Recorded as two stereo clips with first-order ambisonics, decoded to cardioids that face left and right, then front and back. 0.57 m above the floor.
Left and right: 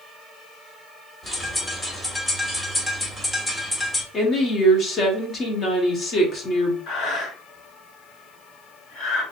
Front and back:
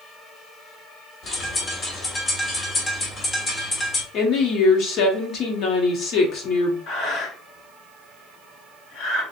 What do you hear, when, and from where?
1.2 s a bird: 25° left, 0.7 m
4.1 s a woman speaking: 35° left, 0.9 m
6.9 s breathing: 45° left, 2.0 m